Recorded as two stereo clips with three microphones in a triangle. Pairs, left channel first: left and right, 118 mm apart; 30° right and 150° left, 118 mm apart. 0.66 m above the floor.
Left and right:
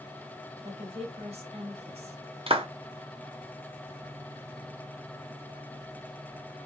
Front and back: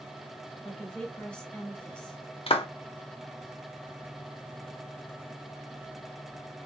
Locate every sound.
0.6 s a woman speaking: 115° right, 1.9 m
2.5 s a clap: 60° right, 0.8 m